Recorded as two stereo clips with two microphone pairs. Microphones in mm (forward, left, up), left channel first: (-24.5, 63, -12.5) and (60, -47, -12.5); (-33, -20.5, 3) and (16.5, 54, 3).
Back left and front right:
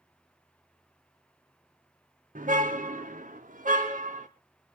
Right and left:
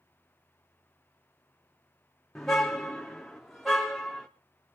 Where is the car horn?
35° right, 4 m; by 4.3 s 30° right, 5 m.